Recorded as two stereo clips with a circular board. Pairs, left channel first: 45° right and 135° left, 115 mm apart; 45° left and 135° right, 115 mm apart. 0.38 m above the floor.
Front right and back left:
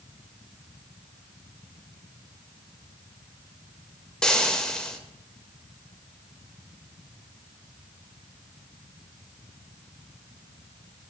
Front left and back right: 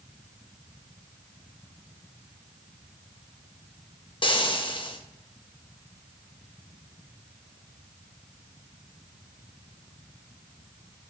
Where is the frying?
35° left, 0.5 m.